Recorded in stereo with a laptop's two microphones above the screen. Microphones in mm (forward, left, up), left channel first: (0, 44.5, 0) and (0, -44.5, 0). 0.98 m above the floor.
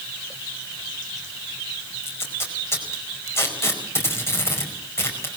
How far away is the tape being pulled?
About 4.5 m.